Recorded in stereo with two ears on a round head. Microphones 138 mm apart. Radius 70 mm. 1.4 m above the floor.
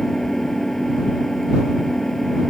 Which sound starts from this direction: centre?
An engine running, at 0.0 s.